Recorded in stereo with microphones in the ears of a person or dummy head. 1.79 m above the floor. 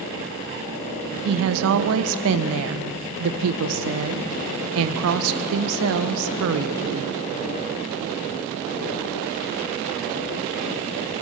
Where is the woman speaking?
70° right (ahead or behind), 1.3 m.